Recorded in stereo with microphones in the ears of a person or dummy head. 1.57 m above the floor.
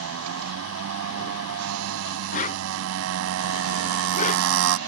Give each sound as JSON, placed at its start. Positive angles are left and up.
{"t": 0.0, "sound": "a motorcycle", "side_deg": -80}
{"t": 2.3, "sound": "a whoosh", "side_deg": 35}